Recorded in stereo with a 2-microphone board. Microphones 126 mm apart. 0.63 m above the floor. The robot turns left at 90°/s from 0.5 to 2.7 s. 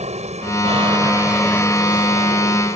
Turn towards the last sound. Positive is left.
turn(degrees=65)